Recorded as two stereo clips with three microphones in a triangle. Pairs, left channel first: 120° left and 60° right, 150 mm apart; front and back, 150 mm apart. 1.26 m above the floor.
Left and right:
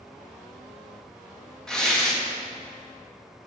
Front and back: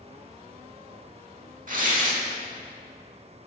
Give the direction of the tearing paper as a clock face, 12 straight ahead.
5 o'clock.